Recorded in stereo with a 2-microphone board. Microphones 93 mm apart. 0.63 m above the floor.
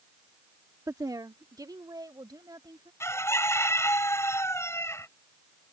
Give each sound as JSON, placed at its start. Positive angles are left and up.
{"t": 0.9, "sound": "a woman speaking", "side_deg": -40}
{"t": 3.0, "sound": "a bird", "side_deg": 30}